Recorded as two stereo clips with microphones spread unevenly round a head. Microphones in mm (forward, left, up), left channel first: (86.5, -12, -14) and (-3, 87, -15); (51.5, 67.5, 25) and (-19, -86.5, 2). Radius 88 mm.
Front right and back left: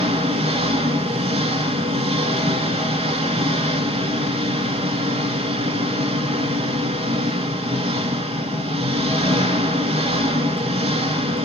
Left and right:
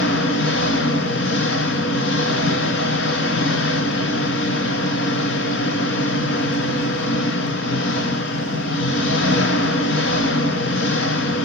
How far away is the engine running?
About 2.5 m.